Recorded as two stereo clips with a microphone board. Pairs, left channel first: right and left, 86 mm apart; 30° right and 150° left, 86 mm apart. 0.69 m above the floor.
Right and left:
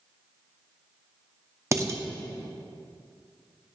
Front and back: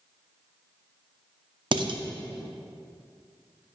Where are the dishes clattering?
145° left, 0.6 m.